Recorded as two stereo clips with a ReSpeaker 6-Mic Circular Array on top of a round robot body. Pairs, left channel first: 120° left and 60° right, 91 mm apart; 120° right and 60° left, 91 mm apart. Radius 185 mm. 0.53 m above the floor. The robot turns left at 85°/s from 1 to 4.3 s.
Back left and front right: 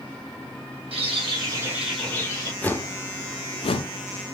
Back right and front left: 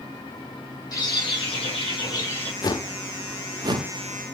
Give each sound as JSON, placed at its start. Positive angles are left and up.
{"t": 0.9, "sound": "a bird", "azimuth_deg": -70, "distance_m": 4.5}
{"t": 2.6, "sound": "a whoosh", "azimuth_deg": -165, "distance_m": 0.8}